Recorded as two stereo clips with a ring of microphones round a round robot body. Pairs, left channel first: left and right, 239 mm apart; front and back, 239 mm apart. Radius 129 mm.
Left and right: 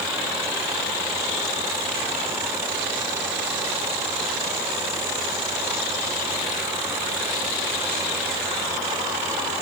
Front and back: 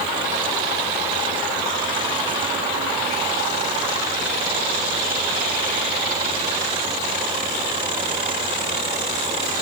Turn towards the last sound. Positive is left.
No sound to turn to.